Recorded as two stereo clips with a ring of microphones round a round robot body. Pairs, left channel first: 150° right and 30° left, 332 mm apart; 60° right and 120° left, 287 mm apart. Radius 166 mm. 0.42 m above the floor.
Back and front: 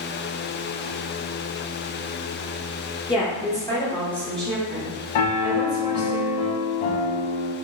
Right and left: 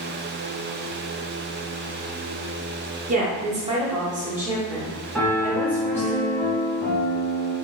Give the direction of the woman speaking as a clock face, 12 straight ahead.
7 o'clock.